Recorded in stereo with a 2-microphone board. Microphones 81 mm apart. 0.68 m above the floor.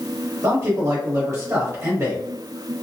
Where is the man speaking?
40° right (ahead or behind), 1.4 m.